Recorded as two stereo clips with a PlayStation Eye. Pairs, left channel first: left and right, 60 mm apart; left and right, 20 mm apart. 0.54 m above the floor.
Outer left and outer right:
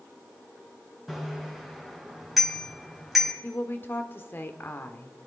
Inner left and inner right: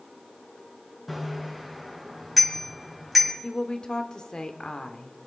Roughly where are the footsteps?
I don't hear footsteps.